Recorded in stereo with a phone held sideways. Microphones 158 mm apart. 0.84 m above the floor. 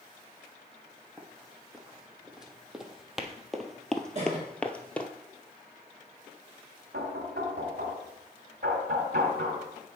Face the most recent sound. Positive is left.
turn(degrees=-85)